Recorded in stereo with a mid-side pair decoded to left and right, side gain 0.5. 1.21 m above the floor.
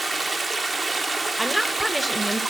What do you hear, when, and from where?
0.0 s running water: 25° right, 1.1 m
1.4 s a woman speaking: 5° right, 1.1 m